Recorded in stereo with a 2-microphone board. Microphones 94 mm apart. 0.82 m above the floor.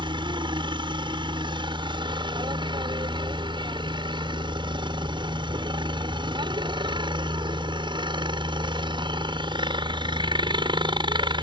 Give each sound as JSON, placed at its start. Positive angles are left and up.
{"t": 0.0, "sound": "a helicopter", "side_deg": -60}